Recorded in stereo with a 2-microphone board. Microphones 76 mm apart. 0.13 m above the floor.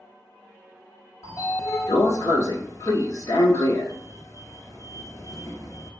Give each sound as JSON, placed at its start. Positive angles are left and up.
{"t": 1.2, "sound": "a sliding door", "side_deg": 45, "distance_m": 1.0}